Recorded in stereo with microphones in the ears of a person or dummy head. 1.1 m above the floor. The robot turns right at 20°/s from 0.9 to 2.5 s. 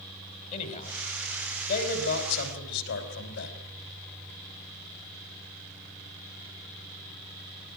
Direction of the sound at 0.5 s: 40° left (ahead or behind).